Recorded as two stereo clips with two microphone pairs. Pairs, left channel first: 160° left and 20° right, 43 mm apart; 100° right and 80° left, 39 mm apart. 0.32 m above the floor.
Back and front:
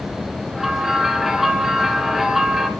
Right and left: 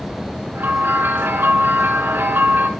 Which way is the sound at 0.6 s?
65° left.